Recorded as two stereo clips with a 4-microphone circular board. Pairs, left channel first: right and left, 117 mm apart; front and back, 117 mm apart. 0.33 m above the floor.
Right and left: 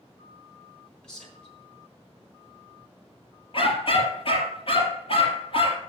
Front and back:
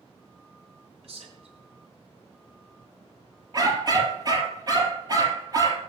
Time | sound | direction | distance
1.0 | a man speaking | 175° right | 3.5 m
3.5 | a dog barking | 125° right | 3 m